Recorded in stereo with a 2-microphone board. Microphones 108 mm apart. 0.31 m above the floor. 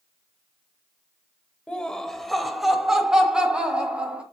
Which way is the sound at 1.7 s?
10° left (ahead or behind).